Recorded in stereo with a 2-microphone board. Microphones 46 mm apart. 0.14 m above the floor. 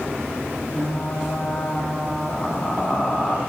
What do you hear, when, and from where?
0.7 s frying: 25° left (ahead or behind), 4 m